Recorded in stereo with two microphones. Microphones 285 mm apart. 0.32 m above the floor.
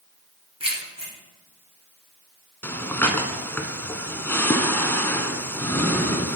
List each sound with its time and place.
0.6 s keys jangling: 20° right (ahead or behind), 2.5 m
2.6 s breathing: 5° left (ahead or behind), 0.8 m